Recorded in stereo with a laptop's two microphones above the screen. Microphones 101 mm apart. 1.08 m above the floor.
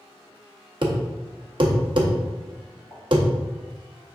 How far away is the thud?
About 0.6 m.